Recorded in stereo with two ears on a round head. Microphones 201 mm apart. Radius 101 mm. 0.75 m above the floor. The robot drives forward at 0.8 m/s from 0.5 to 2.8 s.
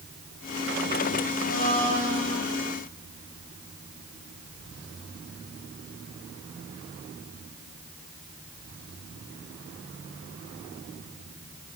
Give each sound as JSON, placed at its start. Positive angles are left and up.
{"t": 1.4, "sound": "a blender", "side_deg": 45, "distance_m": 9.0}